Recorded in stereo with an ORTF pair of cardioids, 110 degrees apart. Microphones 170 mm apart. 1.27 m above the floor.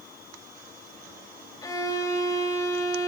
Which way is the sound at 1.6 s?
20° left.